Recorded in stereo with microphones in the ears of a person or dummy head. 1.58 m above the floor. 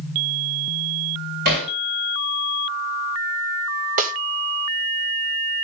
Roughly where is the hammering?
Right.